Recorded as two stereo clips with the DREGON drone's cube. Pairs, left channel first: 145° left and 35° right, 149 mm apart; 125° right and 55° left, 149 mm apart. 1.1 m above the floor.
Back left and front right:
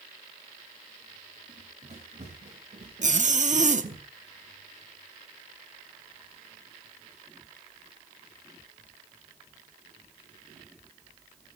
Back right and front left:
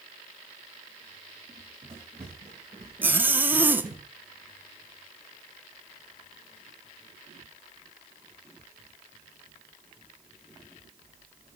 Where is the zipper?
20° right, 0.8 m.